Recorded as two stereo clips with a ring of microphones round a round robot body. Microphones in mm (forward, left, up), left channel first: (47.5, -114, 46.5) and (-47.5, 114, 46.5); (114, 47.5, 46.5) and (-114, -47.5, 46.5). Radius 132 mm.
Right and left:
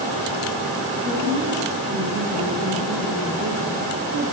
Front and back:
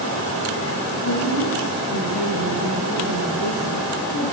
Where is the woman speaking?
50° left, 8 m.